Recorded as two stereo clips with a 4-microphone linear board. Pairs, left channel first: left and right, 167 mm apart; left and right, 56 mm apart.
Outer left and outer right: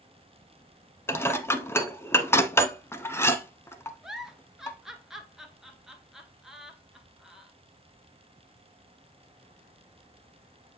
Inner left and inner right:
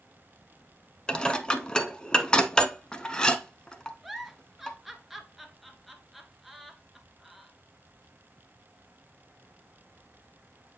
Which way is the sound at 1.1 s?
15° left (ahead or behind).